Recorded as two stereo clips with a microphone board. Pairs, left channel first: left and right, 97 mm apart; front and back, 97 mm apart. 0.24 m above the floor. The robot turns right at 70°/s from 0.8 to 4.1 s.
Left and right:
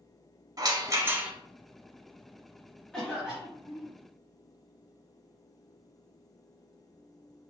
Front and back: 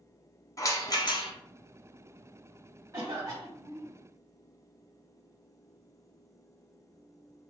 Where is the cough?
165° left, 1.2 m; by 3.9 s 125° right, 1.2 m.